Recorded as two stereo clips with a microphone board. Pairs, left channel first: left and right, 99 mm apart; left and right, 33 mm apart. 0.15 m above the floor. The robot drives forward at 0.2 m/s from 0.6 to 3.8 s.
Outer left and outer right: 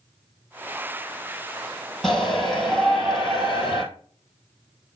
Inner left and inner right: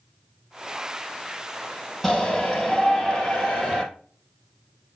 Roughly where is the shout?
Centre.